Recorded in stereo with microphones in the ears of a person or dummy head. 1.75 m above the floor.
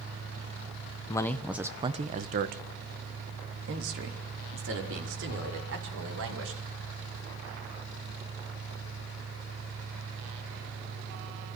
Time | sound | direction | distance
1.1 | a man speaking | 20° left (ahead or behind) | 1.3 m